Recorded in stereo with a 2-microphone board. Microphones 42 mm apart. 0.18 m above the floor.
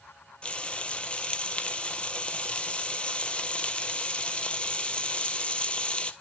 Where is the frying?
25° left (ahead or behind), 1.0 m.